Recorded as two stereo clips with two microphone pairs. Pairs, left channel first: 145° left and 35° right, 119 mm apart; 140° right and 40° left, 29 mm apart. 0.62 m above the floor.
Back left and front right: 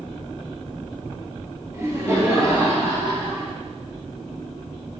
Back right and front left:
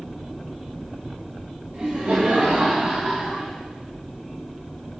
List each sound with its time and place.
1.7 s laughter: 30° left, 4 m; by 3.5 s 15° left, 5 m